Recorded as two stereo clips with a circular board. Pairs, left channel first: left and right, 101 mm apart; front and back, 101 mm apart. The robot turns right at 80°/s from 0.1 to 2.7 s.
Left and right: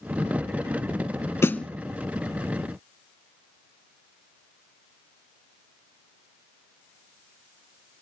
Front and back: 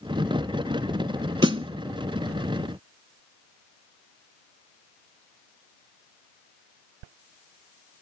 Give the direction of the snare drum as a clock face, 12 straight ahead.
7 o'clock.